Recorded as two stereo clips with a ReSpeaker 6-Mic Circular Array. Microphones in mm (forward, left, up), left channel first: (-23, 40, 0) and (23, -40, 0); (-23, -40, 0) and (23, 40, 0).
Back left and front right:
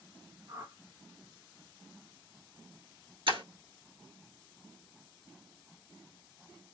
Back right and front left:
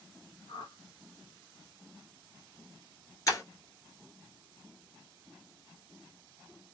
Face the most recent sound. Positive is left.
turn(degrees=-70)